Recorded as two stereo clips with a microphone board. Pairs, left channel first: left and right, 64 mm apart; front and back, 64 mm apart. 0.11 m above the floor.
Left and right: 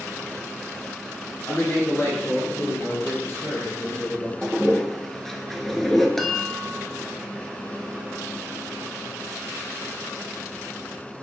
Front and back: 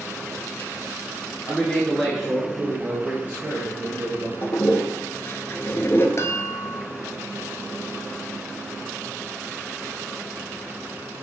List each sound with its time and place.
1.5 s a man speaking: 60° left, 1.8 m; by 4.3 s 140° left, 3 m
4.4 s a toilet flushing: 10° left, 0.8 m
6.2 s a chime: 5° left, 0.9 m